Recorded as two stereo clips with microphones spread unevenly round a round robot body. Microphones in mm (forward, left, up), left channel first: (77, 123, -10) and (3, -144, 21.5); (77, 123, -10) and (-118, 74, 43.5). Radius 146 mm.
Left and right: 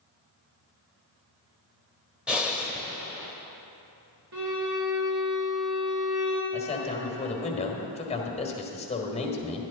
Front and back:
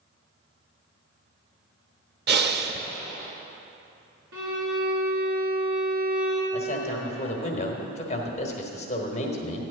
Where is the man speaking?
20° left, 1.2 m.